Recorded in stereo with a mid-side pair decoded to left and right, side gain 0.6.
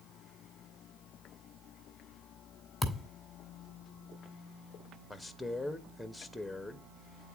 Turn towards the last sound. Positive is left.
turn(degrees=5)